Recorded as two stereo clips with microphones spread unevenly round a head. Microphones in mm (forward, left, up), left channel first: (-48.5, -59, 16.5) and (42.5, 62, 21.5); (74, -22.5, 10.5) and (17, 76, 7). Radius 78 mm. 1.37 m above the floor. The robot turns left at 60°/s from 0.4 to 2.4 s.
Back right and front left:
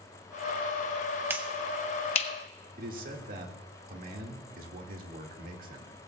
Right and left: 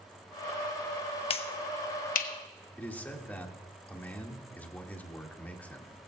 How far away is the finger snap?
About 1.0 m.